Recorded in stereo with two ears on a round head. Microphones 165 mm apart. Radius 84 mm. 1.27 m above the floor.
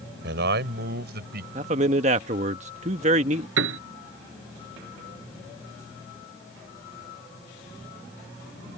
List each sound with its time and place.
0.2 s a man speaking: 70° right (ahead or behind); by 1.4 s 65° right (ahead or behind)
1.6 s a man speaking: 40° right (ahead or behind)
3.6 s a piano: 85° right